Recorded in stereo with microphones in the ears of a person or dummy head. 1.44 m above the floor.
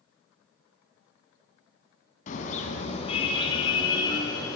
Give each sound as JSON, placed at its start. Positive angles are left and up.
{"t": 2.3, "sound": "a car horn", "side_deg": 50, "distance_m": 4.5}